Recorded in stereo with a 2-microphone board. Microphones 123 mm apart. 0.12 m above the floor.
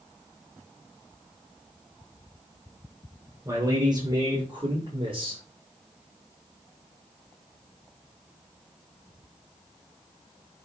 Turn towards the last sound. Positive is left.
turn(degrees=-50)  # may be behind; listen again after turning